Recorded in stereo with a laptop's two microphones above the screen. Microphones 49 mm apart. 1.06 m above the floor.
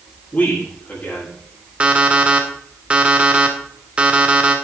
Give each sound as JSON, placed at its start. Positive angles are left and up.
{"t": 0.3, "sound": "a man speaking", "side_deg": 35, "distance_m": 8.0}
{"t": 1.8, "sound": "an alarm clock", "side_deg": -25, "distance_m": 1.6}